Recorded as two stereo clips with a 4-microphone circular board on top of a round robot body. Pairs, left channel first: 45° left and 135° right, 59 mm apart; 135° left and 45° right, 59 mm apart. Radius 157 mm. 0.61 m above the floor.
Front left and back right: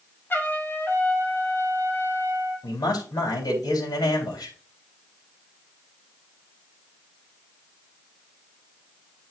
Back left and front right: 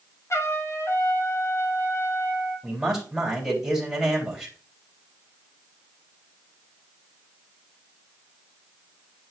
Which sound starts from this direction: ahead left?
A man speaking, at 2.6 s.